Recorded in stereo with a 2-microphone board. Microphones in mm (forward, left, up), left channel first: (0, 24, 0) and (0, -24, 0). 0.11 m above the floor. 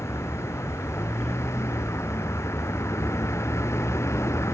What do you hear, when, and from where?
0.0 s a vehicle: 75° left (ahead or behind)